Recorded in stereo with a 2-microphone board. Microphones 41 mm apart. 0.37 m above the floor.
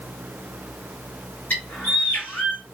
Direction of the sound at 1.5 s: 50° left (ahead or behind).